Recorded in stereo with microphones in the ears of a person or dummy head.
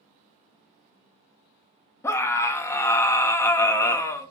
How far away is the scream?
About 0.6 m.